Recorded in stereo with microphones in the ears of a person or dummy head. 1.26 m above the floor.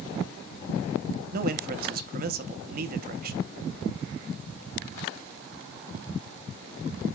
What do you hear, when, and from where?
1.3 s a man speaking: 55° right (ahead or behind), 0.9 m